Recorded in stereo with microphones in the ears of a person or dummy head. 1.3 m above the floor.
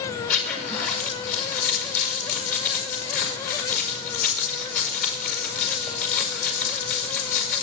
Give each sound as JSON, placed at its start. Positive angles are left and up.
{"t": 0.3, "sound": "a zipper", "side_deg": 45, "distance_m": 5.0}